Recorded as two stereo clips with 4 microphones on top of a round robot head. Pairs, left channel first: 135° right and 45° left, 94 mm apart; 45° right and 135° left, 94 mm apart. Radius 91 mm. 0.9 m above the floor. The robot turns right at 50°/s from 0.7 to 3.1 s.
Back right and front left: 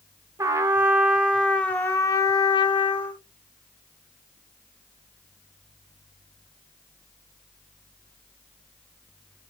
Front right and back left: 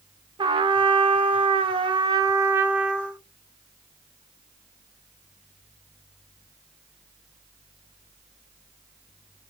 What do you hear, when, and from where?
0.4 s a trumpet: 100° left, 0.7 m; by 3.2 s 140° right, 0.7 m